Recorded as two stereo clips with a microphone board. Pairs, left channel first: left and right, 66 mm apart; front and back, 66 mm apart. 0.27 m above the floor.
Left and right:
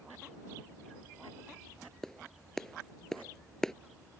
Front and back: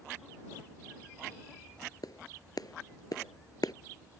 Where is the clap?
5° left.